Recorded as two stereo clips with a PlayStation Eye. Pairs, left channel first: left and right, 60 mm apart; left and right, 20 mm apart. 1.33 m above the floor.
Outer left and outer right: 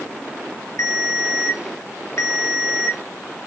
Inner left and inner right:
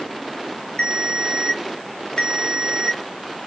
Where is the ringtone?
55° left (ahead or behind), 0.6 m.